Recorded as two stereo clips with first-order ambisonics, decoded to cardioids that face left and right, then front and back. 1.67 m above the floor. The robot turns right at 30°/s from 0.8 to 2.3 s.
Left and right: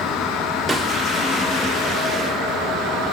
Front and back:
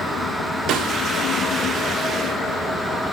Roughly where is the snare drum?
Behind.